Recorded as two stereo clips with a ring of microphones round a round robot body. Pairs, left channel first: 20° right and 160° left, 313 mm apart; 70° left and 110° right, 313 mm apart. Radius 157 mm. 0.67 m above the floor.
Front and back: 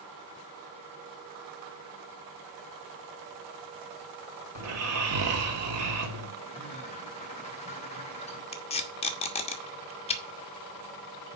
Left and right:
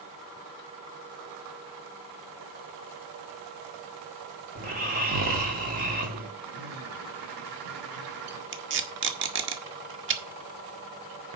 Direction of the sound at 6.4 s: 95° right.